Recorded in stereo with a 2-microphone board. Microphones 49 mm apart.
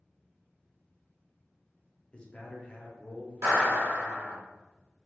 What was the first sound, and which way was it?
A man speaking, 25° left (ahead or behind).